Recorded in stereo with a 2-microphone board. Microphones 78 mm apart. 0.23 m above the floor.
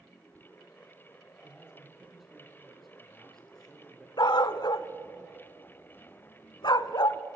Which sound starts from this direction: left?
A dog barking, at 4.2 s.